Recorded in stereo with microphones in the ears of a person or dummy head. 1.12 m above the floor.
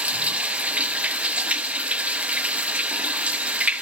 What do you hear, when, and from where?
0.0 s running water: 5° right (ahead or behind), 0.7 m